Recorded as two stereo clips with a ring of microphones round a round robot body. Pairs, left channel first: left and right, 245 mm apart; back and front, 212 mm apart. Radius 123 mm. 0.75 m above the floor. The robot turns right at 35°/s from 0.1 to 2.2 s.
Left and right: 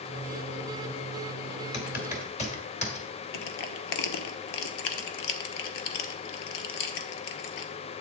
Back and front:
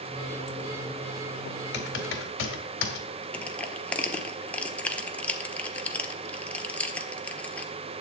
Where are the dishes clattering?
No dishes clattering in this recording.